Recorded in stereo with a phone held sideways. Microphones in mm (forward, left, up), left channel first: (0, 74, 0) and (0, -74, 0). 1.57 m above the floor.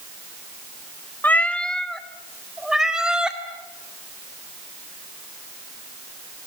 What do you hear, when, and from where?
1.2 s a cat meowing: 10° left (ahead or behind), 1.0 m; by 3.4 s 5° right (ahead or behind), 2.5 m